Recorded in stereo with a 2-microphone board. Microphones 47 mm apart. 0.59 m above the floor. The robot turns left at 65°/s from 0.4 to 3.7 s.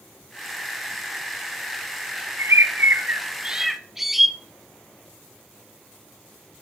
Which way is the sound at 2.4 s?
90° right.